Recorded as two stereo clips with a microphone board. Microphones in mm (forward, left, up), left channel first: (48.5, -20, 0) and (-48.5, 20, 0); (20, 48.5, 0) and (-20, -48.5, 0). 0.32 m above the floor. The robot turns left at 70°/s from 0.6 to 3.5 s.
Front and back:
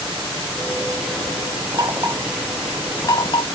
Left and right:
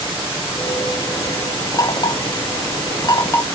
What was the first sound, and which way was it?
Knocking, 120° left.